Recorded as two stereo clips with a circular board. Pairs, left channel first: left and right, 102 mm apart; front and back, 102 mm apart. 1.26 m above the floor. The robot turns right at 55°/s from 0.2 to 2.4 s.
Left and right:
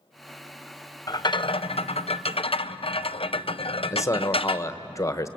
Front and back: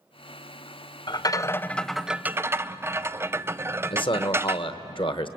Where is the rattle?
40° left, 0.5 m; by 4.7 s 115° left, 0.5 m.